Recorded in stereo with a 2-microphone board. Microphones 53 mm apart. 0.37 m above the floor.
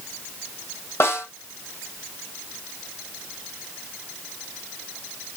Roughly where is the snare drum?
Left.